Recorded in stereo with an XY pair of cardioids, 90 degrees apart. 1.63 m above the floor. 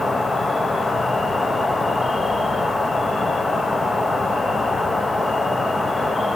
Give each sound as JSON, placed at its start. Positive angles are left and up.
{"t": 0.0, "sound": "an insect", "azimuth_deg": 20, "distance_m": 1.2}